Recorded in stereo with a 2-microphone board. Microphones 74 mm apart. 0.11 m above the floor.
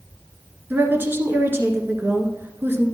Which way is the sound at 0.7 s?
30° right (ahead or behind).